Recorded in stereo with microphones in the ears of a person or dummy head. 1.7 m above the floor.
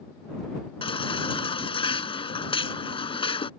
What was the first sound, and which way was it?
A baby crying, 25° left (ahead or behind).